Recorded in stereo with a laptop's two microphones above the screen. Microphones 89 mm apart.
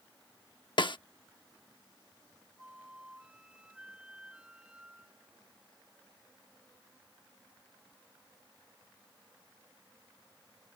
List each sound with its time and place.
0.8 s a snare drum: 60° left (ahead or behind)
2.6 s a flute: 10° right (ahead or behind)